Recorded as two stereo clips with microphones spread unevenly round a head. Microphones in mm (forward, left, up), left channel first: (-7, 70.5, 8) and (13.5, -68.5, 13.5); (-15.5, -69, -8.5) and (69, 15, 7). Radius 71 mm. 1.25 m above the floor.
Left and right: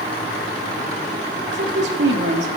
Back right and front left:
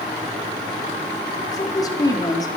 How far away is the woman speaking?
About 3 m.